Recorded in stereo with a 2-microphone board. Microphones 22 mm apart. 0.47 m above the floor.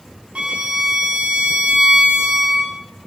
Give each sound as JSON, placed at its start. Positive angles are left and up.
{"t": 0.3, "sound": "a violin", "side_deg": -75, "distance_m": 3.5}